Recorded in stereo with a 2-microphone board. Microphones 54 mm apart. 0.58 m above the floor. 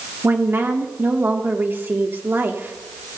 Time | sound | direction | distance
0.2 | a woman speaking | 40° right (ahead or behind) | 1.4 m